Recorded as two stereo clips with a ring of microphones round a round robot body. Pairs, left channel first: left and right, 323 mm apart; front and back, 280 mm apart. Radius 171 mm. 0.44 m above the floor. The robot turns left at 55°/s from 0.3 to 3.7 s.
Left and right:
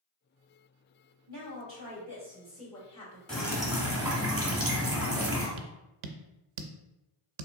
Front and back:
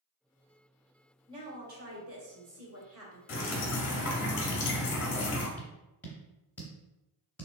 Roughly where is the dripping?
Ahead.